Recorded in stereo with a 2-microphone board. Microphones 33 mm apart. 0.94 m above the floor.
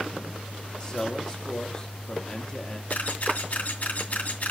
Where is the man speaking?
20° left (ahead or behind), 1.7 m.